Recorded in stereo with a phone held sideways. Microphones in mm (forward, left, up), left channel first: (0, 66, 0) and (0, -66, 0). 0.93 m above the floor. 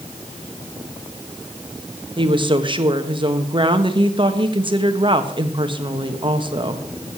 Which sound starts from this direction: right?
A woman speaking, at 2.2 s.